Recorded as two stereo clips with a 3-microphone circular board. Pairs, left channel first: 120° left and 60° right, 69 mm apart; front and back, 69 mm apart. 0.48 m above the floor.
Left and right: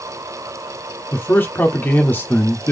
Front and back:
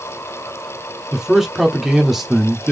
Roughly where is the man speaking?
Left.